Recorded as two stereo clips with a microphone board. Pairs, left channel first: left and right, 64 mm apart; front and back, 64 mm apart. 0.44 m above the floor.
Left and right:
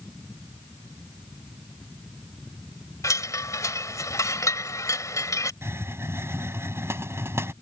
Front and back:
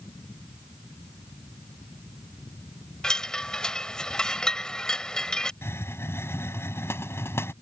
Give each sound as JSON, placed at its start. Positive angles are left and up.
{"t": 3.0, "sound": "a chime", "azimuth_deg": 75}
{"t": 5.6, "sound": "a hiss", "azimuth_deg": -45}